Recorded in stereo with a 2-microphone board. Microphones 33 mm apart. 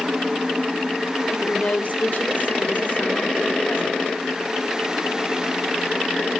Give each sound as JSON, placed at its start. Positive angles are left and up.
{"t": 1.3, "sound": "a woman speaking", "side_deg": 35, "distance_m": 1.4}